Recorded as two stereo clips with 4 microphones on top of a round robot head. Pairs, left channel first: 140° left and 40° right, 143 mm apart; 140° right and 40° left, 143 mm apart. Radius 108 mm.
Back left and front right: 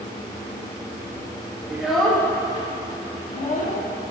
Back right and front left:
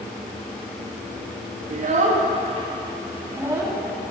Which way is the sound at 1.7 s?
40° left.